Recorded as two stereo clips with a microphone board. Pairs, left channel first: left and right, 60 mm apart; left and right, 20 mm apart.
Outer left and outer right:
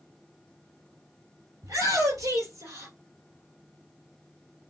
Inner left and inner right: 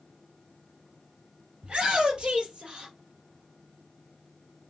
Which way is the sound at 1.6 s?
65° right (ahead or behind).